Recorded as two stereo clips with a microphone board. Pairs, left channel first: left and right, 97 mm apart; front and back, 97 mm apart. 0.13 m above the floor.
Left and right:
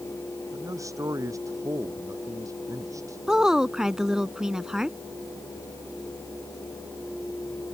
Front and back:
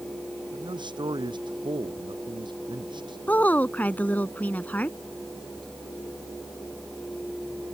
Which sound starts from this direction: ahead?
A woman speaking, at 3.3 s.